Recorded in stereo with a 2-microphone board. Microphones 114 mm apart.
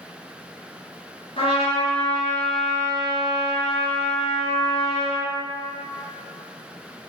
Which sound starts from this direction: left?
A trumpet, at 1.4 s.